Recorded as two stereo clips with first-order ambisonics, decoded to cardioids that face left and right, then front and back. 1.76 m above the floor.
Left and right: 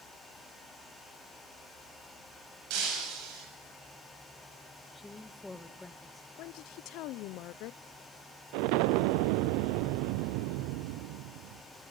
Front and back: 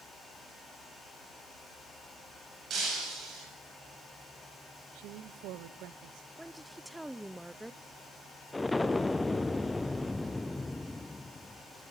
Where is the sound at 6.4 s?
95° left, 0.6 m.